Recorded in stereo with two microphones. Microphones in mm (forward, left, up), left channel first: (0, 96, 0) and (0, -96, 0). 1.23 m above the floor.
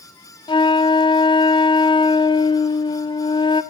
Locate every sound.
0.5 s a flute: 25° left (ahead or behind), 0.5 m